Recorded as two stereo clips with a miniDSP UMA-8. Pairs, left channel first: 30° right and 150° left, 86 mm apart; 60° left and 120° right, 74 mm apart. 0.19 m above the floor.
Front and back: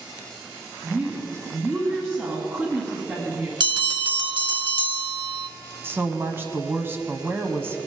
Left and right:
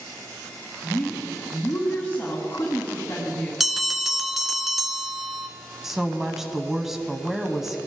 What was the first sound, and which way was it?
A woman speaking, 110° left.